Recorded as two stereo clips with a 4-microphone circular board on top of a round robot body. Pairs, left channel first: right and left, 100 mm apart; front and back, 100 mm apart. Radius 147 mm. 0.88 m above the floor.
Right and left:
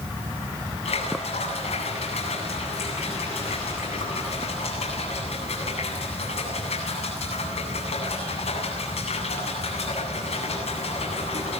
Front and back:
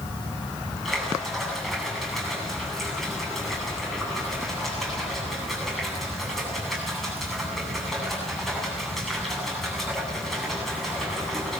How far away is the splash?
About 8.5 m.